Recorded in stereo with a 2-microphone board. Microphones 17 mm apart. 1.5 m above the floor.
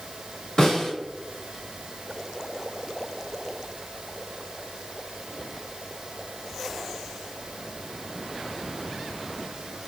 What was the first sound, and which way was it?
A snare drum, 35° left (ahead or behind).